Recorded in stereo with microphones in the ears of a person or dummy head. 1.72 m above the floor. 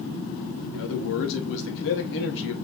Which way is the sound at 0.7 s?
70° left (ahead or behind).